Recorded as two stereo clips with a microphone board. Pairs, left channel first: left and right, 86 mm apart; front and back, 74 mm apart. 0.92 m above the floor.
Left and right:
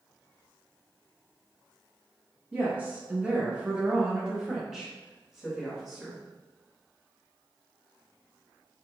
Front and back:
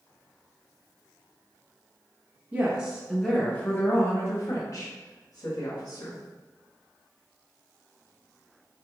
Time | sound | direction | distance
2.5 | a woman speaking | 140° right | 0.8 m